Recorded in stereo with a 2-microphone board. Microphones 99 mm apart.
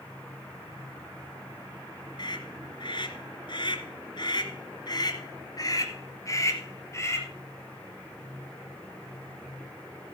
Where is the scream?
50° left (ahead or behind), 2 m; by 7.3 s 30° left (ahead or behind), 3 m.